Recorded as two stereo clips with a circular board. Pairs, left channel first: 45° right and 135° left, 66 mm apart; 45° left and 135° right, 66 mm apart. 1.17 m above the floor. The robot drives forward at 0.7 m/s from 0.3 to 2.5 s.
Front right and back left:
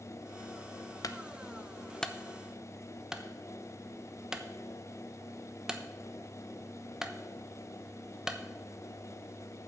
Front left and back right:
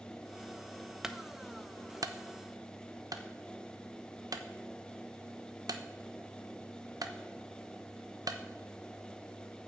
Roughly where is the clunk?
Ahead right.